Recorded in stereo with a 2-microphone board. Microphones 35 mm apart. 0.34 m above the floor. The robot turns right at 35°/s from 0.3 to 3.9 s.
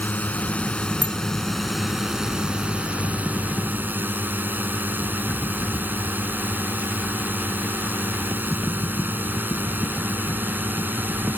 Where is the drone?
130° left; by 11.4 s 105° right.